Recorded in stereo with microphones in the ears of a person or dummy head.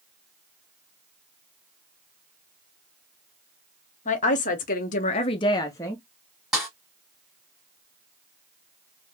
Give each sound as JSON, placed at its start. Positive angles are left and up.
{"t": 4.0, "sound": "a woman speaking", "side_deg": 40, "distance_m": 0.8}
{"t": 6.5, "sound": "a snare drum", "side_deg": 0, "distance_m": 1.2}